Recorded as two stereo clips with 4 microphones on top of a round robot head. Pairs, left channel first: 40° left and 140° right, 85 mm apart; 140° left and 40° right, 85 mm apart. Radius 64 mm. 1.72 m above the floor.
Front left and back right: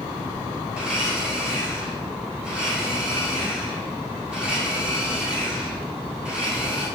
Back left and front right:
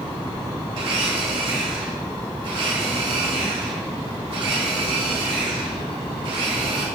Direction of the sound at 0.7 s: 60° right.